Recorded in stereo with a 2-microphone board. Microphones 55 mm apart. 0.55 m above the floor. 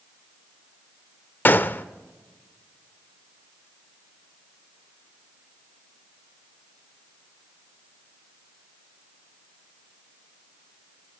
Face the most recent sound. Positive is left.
turn(degrees=35)  # may be behind; listen again after turning